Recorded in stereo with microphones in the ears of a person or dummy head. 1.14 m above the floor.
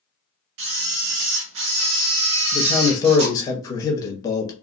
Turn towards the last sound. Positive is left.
turn(degrees=20)  # may be behind; listen again after turning